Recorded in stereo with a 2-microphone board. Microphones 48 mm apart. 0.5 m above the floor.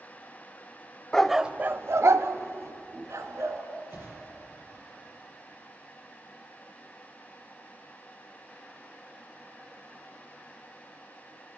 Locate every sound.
1.1 s a dog barking: 15° left (ahead or behind), 0.6 m; by 3.6 s 75° right (ahead or behind), 2 m
3.9 s a whoosh: 55° right (ahead or behind), 5 m